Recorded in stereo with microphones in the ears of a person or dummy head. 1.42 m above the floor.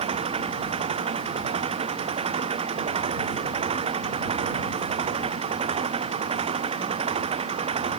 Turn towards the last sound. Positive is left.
turn(degrees=-35)  # may be behind; listen again after turning